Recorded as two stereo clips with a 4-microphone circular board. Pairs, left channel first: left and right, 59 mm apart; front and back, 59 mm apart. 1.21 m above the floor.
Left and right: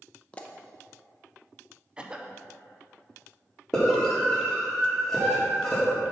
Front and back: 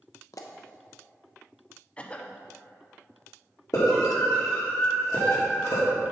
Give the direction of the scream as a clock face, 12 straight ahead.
12 o'clock.